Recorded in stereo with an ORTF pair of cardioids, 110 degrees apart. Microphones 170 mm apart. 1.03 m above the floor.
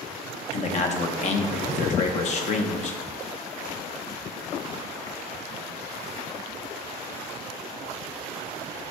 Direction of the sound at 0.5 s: 45° left.